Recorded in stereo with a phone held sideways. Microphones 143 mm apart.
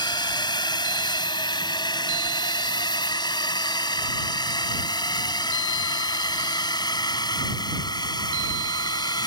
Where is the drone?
30° left (ahead or behind).